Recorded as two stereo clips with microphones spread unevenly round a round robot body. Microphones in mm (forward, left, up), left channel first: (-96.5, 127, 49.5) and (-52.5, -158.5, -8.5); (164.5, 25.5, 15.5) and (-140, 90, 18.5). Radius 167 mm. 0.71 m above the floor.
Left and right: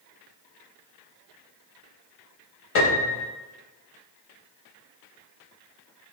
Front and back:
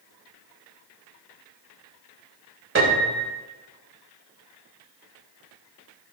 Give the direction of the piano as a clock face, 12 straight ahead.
8 o'clock.